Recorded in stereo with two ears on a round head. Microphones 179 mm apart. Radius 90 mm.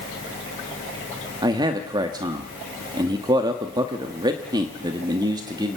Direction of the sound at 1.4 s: 20° right (ahead or behind).